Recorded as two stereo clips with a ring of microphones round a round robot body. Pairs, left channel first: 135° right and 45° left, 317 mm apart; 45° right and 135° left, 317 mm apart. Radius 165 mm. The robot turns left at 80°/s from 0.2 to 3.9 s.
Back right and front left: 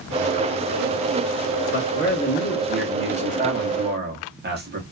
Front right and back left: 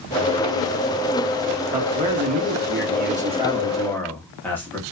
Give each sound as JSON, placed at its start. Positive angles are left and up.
{"t": 1.7, "sound": "a man speaking", "azimuth_deg": -150, "distance_m": 1.0}